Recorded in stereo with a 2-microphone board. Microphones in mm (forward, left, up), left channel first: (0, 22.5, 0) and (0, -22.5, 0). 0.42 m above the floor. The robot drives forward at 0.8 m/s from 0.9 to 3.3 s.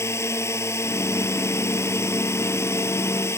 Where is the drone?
85° left; by 3.4 s 80° left.